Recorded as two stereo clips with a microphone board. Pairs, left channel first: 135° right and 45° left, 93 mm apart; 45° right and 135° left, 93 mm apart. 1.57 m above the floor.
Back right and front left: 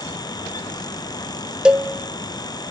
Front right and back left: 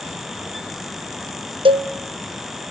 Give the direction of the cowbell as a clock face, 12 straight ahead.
8 o'clock.